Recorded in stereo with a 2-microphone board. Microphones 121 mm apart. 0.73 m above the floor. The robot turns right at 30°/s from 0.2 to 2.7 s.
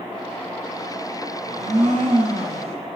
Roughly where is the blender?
Right.